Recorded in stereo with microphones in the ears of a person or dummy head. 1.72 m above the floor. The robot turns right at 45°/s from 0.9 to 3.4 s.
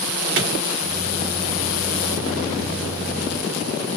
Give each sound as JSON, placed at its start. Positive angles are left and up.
{"t": 0.4, "sound": "a clap", "side_deg": -70, "distance_m": 2.5}